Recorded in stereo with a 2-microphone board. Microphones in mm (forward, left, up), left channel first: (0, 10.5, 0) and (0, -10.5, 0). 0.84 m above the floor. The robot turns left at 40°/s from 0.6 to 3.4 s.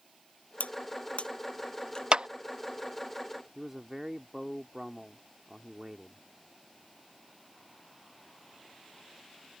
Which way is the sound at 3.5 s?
15° right (ahead or behind).